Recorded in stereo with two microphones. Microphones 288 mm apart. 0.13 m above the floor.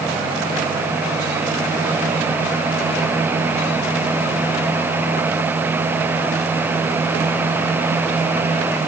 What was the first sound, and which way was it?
Only background noise.